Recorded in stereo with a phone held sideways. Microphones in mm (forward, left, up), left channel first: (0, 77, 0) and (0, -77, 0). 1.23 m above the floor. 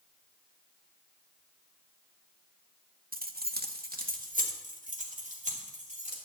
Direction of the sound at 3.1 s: 65° right (ahead or behind).